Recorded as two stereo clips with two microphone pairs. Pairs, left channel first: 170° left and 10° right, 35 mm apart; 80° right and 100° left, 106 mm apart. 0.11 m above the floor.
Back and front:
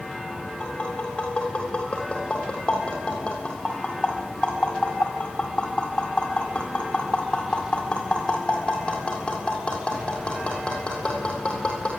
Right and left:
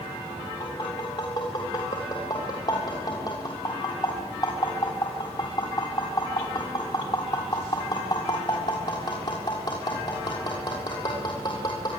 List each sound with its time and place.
0.6 s tapping: 125° right, 7 m